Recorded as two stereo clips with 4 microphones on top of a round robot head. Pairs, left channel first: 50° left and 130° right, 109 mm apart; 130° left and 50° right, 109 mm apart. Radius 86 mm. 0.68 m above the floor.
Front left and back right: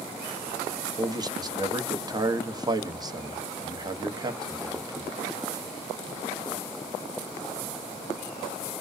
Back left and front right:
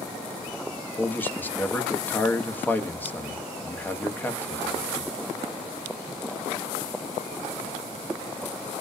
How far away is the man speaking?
About 0.7 m.